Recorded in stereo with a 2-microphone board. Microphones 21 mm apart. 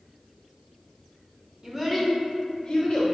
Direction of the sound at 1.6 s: 20° right (ahead or behind).